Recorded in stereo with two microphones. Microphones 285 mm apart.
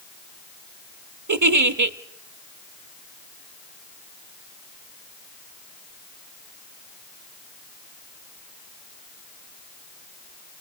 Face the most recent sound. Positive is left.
turn(degrees=-85)